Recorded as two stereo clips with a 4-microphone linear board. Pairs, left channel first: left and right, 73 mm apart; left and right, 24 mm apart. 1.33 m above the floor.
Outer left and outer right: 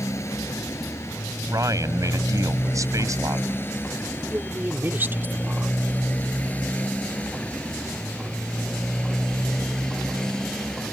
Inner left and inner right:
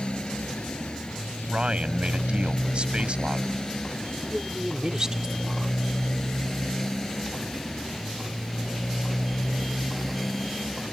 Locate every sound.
0.0 s a motorcycle: 45° left (ahead or behind); by 10.9 s 10° left (ahead or behind)
1.5 s a man speaking: 50° right (ahead or behind)
4.3 s a woman speaking: 30° right (ahead or behind)